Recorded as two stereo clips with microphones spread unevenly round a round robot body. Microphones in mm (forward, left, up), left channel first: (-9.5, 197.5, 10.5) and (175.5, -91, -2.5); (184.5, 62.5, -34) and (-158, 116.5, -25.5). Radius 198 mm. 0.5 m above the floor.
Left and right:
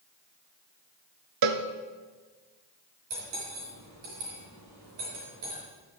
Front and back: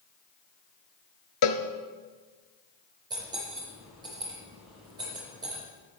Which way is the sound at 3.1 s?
110° right.